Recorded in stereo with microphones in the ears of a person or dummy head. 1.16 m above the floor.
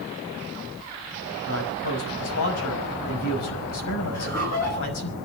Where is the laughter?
45° left (ahead or behind), 8.5 m.